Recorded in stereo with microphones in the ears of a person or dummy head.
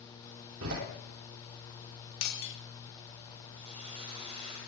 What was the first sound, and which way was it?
A door slam, 75° right (ahead or behind).